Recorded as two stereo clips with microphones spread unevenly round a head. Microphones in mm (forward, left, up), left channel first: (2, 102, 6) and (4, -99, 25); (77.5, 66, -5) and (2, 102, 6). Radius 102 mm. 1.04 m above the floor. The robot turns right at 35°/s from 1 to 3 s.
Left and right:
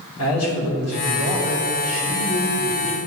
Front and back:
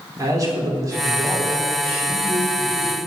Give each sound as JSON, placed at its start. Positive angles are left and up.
{"t": 0.2, "sound": "a man speaking", "azimuth_deg": 105, "distance_m": 2.5}